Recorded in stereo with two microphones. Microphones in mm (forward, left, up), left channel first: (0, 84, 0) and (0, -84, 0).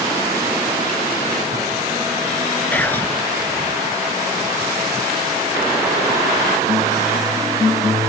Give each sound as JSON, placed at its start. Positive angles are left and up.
{"t": 2.7, "sound": "whispering", "side_deg": 10}